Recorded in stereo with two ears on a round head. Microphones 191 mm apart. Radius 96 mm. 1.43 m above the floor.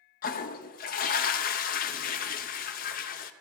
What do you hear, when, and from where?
0.2 s a toilet flushing: 45° left (ahead or behind), 0.6 m